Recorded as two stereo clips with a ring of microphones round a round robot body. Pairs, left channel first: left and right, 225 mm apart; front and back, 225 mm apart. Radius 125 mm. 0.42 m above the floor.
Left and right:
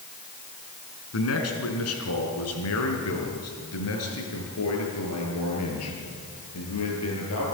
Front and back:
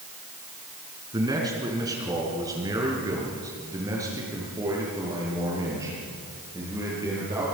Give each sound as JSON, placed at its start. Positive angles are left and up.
{"t": 1.1, "sound": "a man speaking", "azimuth_deg": 105, "distance_m": 4.0}